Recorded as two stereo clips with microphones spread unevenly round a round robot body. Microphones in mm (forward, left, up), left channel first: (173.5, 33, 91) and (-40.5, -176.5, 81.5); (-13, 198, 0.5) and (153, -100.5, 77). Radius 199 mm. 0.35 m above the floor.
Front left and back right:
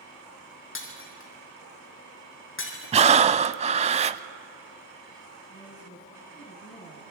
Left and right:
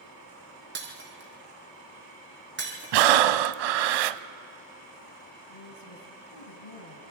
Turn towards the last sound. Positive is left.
turn(degrees=115)